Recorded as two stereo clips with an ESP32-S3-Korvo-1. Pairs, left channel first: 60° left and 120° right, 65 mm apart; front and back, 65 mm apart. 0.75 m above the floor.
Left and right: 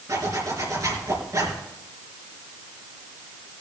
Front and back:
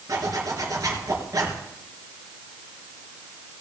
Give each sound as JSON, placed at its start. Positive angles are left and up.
{"t": 0.1, "sound": "a zipper", "azimuth_deg": -150, "distance_m": 4.0}